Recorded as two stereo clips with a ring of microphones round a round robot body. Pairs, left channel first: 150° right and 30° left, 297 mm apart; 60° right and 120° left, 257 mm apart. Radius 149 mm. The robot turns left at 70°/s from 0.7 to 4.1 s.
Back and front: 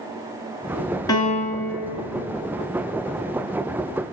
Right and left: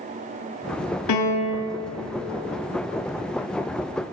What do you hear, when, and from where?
1.1 s a piano: 70° right, 1.8 m; by 1.7 s 115° right, 1.8 m